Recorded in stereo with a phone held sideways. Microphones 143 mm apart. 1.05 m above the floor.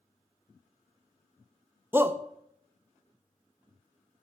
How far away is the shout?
About 0.6 m.